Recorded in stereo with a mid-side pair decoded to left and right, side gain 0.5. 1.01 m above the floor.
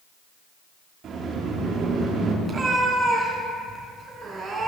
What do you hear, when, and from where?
1.0 s a sliding door: 55° right, 3 m
2.5 s a cat meowing: 35° right, 3.5 m